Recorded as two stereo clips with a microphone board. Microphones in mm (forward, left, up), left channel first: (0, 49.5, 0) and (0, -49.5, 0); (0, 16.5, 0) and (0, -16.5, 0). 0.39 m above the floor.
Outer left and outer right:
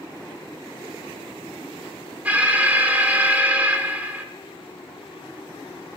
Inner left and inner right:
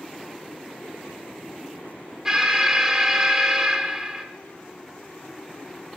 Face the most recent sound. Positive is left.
turn(degrees=-15)  # may be behind; listen again after turning